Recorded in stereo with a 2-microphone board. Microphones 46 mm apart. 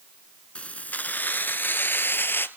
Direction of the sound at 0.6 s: 25° left (ahead or behind).